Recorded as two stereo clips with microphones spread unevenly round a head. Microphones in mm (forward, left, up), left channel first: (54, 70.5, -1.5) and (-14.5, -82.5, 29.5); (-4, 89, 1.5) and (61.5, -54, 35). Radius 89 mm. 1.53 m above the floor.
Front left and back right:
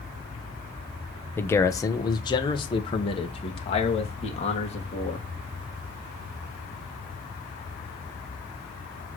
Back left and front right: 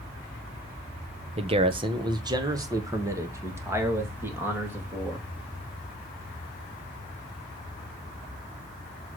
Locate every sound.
1.4 s a man speaking: 15° right, 0.9 m; by 5.2 s 15° left, 3 m